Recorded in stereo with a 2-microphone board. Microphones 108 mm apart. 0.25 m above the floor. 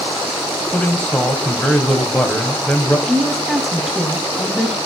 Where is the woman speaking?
Centre (ahead or behind), 1.5 m.